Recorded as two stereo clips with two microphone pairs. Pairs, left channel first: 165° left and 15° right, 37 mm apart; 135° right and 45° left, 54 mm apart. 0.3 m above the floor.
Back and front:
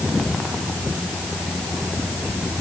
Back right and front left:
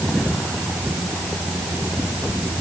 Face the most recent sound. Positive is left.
No sound to turn to.